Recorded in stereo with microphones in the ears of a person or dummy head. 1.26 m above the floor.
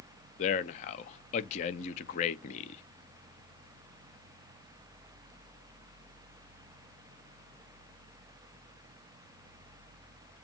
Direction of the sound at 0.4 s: 35° left (ahead or behind).